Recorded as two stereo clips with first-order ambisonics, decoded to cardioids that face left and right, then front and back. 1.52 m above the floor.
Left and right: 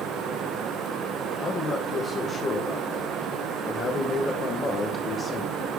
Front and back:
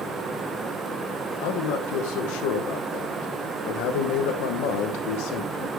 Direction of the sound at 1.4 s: 20° left.